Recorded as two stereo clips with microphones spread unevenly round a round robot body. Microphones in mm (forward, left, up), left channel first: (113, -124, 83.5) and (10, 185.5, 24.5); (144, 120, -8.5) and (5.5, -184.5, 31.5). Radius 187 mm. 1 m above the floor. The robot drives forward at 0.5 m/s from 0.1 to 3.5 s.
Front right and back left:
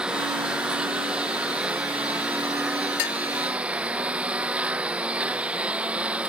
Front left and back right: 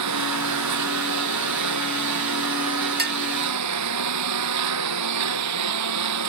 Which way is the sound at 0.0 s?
165° right.